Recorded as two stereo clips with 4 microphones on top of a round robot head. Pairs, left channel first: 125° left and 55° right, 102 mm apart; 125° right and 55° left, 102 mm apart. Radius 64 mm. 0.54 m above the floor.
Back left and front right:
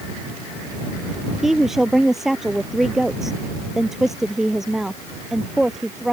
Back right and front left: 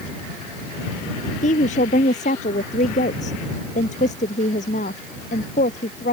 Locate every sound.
1.4 s a woman speaking: 140° right